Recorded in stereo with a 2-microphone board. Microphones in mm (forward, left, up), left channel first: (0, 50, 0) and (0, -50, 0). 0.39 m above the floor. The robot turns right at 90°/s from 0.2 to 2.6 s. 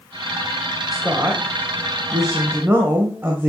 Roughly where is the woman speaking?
Behind.